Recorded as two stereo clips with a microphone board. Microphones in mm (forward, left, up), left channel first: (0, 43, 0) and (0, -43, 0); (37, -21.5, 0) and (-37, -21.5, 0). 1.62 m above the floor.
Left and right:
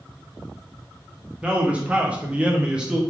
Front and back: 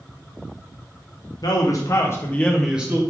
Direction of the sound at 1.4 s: 15° right.